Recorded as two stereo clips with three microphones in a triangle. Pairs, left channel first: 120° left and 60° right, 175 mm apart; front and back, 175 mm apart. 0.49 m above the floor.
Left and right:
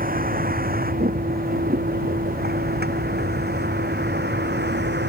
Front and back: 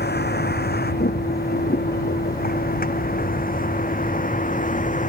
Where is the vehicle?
25° right; by 5.1 s 45° right.